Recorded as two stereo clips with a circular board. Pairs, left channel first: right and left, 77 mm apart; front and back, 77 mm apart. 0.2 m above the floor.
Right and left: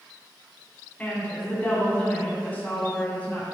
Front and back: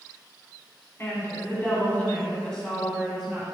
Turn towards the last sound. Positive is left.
turn(degrees=-110)